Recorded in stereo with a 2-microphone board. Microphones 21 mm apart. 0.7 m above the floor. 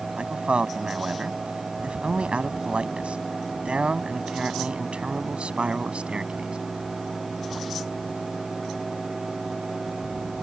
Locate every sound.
0.2 s a man speaking: 70° right (ahead or behind); by 6.6 s 75° right (ahead or behind)